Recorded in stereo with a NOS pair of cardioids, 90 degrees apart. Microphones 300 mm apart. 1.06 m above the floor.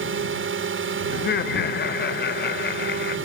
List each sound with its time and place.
0.0 s a drone: 45° right
1.1 s laughter: 35° left